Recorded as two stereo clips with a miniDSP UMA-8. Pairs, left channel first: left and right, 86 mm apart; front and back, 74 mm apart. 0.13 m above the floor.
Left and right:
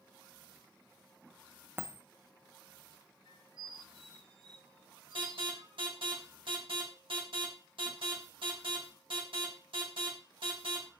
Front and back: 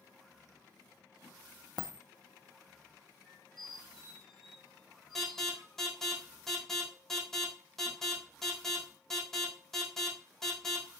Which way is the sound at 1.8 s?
25° right.